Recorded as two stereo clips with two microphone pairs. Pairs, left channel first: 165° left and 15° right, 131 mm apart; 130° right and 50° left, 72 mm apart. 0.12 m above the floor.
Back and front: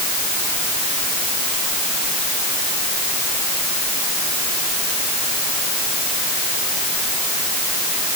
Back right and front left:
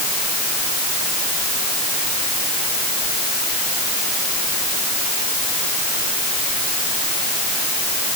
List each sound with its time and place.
Only background noise.